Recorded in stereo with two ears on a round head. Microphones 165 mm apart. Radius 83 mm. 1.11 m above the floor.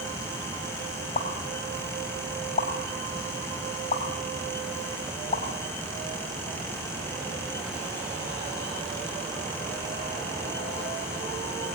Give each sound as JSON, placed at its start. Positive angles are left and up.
{"t": 1.1, "sound": "a pop", "side_deg": 40, "distance_m": 3.5}